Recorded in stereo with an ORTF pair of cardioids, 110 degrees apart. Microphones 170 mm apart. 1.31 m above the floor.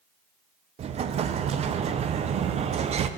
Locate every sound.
0.8 s an explosion: 40° right, 0.5 m